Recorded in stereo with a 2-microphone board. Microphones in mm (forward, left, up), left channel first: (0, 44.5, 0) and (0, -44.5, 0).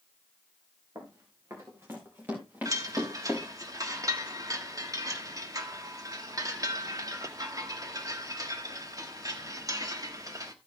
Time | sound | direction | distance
0.9 | running footsteps | 40° right (ahead or behind) | 4 m
2.6 | a chime | 40° right (ahead or behind) | 1.3 m